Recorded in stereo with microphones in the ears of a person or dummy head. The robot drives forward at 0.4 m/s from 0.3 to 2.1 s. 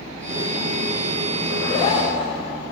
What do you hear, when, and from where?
1.5 s a zipper: 35° left (ahead or behind), 0.5 m; by 2.3 s 25° left (ahead or behind), 0.7 m